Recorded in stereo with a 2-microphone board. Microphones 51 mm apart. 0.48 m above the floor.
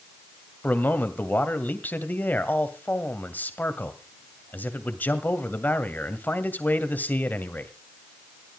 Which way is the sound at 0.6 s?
35° left (ahead or behind).